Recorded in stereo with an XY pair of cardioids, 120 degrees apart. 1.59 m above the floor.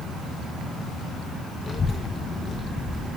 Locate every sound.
1.7 s a child speaking: 30° left, 1.5 m